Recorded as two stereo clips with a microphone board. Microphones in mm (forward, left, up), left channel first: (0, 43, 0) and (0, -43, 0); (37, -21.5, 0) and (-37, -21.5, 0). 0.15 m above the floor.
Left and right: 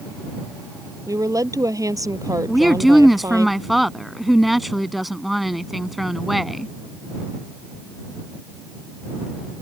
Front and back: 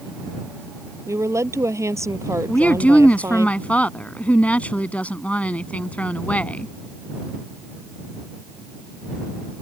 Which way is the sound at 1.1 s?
135° right.